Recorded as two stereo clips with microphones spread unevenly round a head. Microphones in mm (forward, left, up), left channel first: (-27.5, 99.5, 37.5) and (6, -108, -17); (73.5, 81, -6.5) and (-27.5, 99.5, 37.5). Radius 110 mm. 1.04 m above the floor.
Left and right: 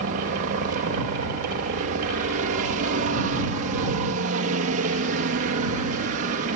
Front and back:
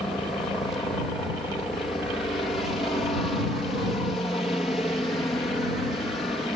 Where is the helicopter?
75° right.